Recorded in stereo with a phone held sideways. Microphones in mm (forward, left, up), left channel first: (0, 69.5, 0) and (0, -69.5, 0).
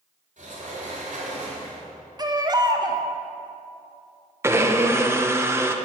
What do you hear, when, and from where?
0.4 s a sliding door: 65° right (ahead or behind), 3.5 m
2.2 s a baby crying: 30° right (ahead or behind), 0.8 m
4.4 s a blender: 20° right (ahead or behind), 0.8 m